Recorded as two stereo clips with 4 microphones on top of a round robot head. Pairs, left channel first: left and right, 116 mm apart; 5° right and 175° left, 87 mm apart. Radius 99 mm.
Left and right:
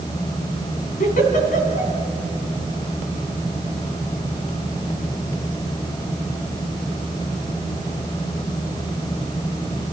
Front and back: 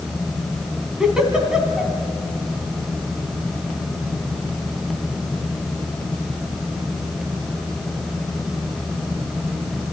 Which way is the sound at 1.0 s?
90° left.